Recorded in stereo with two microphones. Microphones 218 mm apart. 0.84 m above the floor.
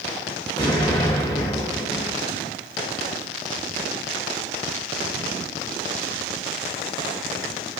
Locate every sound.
0.6 s an explosion: 20° left (ahead or behind), 1.1 m